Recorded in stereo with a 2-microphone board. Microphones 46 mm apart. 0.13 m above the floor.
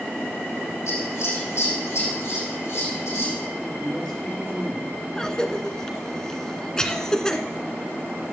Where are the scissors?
80° left, 6.5 m.